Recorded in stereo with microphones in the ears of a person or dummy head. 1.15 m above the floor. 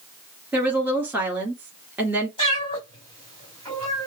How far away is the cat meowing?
About 3.5 m.